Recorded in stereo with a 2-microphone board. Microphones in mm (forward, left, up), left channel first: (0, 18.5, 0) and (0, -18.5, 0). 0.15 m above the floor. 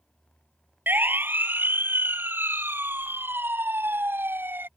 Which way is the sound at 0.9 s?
65° right (ahead or behind).